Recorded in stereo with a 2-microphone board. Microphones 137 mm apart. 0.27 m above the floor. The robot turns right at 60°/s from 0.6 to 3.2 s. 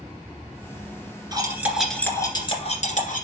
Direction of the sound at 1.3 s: 30° right (ahead or behind).